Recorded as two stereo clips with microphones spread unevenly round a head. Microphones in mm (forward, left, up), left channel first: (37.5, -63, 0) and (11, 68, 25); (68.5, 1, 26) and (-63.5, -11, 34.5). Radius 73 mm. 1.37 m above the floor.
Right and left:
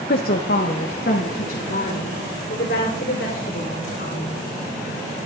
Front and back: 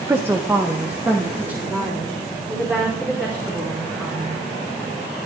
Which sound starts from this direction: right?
A woman speaking, at 0.1 s.